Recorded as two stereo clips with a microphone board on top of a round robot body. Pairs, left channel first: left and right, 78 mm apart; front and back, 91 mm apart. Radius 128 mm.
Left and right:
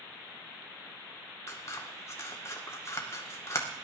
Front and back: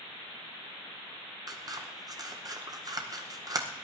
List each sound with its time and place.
1.5 s scissors: 140° left, 2.0 m